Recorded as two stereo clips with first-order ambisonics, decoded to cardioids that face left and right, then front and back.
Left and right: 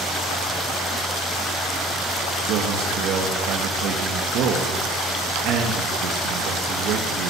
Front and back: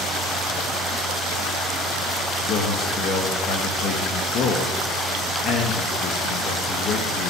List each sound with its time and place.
2.5 s a man speaking: 50° right, 1.9 m